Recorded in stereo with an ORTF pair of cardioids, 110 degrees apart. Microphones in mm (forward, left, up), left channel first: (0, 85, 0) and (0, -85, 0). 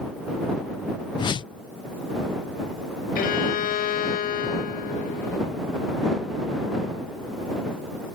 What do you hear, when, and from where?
1.2 s a whoosh: 25° left
3.1 s a violin: 55° left